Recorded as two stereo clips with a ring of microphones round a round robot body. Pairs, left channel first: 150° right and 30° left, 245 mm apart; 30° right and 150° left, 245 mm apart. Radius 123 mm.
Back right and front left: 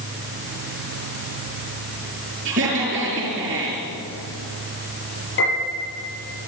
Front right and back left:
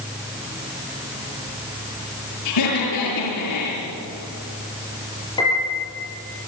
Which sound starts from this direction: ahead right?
Laughter, at 2.5 s.